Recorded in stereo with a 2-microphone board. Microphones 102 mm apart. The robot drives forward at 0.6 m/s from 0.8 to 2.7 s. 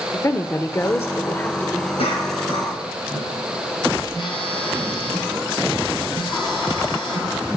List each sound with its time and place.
0.1 s a woman speaking: 25° left (ahead or behind), 0.8 m; by 1.9 s 20° left (ahead or behind), 1.2 m
2.0 s a cough: 70° left (ahead or behind), 5 m
4.1 s a phone buzzing: 50° left (ahead or behind), 3.5 m